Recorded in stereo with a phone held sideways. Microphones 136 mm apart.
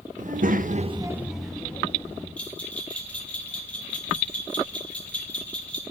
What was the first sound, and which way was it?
A child speaking, 60° right (ahead or behind).